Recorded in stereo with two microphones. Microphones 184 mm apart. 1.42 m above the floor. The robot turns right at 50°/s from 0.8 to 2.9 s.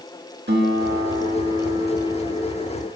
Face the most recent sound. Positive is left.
turn(degrees=25)